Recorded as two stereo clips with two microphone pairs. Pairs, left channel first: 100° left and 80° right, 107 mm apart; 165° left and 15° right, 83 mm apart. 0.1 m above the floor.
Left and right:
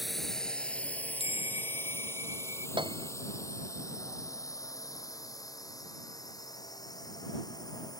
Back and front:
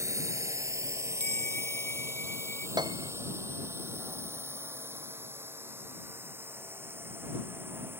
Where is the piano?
45° right.